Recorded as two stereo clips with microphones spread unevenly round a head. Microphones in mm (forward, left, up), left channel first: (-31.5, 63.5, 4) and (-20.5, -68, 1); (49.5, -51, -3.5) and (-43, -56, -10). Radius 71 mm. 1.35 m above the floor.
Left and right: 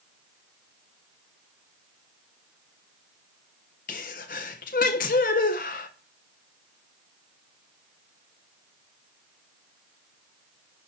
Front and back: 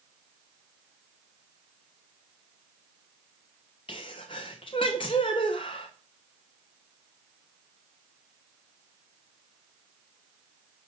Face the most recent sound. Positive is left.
turn(degrees=60)